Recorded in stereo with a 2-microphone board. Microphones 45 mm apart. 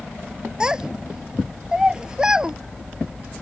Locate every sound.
0.6 s a child speaking: 15° right (ahead or behind)